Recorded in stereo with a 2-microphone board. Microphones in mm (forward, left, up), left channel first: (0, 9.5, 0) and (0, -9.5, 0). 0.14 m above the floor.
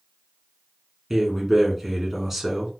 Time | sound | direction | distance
1.1 | a man speaking | 15° right (ahead or behind) | 1.5 m